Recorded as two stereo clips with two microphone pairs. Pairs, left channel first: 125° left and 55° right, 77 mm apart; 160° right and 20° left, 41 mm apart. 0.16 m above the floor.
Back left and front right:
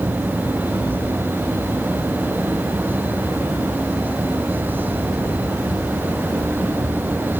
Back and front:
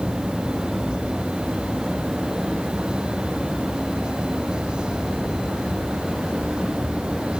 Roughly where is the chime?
No chime in this recording.